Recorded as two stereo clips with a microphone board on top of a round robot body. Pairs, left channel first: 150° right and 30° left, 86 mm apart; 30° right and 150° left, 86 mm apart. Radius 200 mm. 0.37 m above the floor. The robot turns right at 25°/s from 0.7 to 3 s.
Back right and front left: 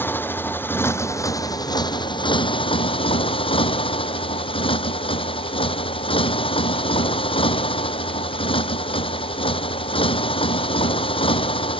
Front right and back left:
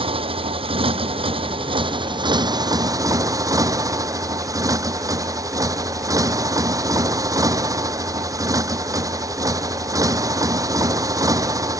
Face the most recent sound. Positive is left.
turn(degrees=-160)